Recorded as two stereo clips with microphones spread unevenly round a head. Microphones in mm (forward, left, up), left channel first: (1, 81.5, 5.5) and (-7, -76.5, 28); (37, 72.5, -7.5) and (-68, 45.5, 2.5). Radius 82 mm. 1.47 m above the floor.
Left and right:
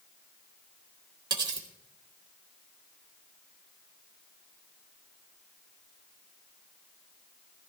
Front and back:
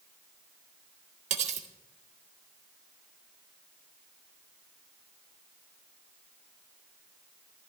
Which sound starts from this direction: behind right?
Cutlery clinking, at 1.3 s.